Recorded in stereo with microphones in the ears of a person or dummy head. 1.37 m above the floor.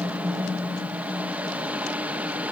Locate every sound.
0.0 s a fan: 10° right (ahead or behind), 2 m